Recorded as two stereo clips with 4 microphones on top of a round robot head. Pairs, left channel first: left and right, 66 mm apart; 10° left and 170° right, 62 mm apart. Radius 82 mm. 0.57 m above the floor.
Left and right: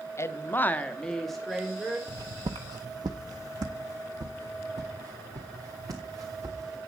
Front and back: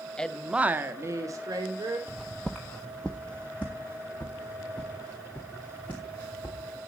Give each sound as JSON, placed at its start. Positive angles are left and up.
{"t": 0.2, "sound": "a woman speaking", "azimuth_deg": 80, "distance_m": 1.0}
{"t": 2.1, "sound": "footsteps", "azimuth_deg": -90, "distance_m": 0.7}